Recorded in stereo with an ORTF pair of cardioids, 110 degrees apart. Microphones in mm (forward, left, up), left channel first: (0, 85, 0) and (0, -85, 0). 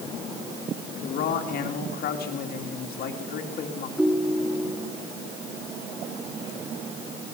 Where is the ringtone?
5° right, 2 m.